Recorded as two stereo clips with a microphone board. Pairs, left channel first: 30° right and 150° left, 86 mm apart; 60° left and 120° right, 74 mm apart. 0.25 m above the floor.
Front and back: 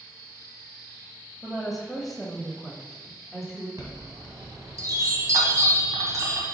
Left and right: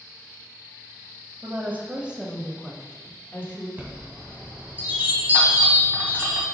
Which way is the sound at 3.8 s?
175° right.